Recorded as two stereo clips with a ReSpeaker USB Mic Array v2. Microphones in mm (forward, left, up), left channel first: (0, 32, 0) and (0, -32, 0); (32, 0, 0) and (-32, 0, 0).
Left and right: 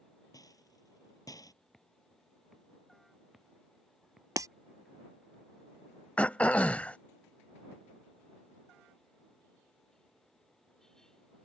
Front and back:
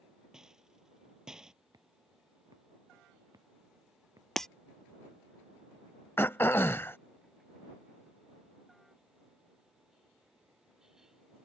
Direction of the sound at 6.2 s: 35° left.